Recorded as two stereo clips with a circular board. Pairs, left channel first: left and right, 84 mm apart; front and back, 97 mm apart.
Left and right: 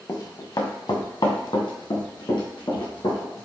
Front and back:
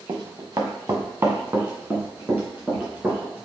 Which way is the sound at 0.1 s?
135° left.